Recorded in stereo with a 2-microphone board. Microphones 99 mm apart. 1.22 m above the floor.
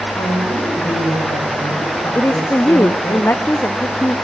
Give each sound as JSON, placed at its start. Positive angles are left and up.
{"t": 0.1, "sound": "a woman speaking", "side_deg": 50, "distance_m": 5.0}
{"t": 2.1, "sound": "a woman speaking", "side_deg": 25, "distance_m": 0.7}